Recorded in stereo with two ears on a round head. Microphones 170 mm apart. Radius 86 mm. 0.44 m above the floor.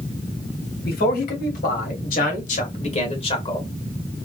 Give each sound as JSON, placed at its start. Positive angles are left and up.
{"t": 0.8, "sound": "a man speaking", "side_deg": 60, "distance_m": 2.5}